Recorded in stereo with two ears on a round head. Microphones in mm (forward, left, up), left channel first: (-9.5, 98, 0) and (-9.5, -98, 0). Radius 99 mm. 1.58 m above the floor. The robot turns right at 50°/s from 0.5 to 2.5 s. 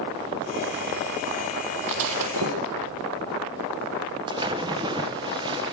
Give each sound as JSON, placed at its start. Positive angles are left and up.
{"t": 1.9, "sound": "breaking glass", "side_deg": -65, "distance_m": 6.5}
{"t": 4.3, "sound": "a splash", "side_deg": -20, "distance_m": 1.5}